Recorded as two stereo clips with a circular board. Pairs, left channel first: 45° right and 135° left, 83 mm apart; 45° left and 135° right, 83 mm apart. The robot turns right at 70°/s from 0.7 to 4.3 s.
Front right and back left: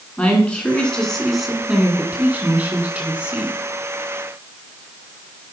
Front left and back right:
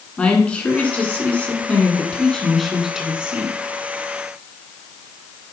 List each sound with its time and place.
0.2 s a woman speaking: straight ahead, 1.5 m; by 3.5 s 160° right, 1.5 m